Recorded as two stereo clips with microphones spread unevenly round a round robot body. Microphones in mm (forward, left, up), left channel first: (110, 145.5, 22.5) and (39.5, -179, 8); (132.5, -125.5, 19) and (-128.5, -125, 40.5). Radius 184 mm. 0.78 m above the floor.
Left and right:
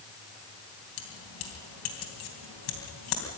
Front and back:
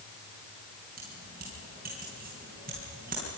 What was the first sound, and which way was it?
Keys jangling, 110° left.